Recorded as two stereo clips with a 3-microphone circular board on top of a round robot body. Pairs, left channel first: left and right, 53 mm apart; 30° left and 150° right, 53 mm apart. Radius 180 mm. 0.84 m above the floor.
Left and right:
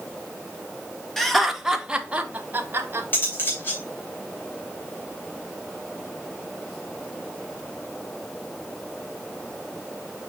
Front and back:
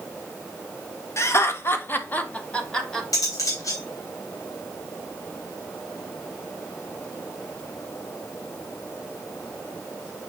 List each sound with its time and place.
1.2 s laughter: 5° left, 1.8 m; by 3.0 s 50° right, 1.8 m
3.1 s cutlery clinking: 35° left, 3 m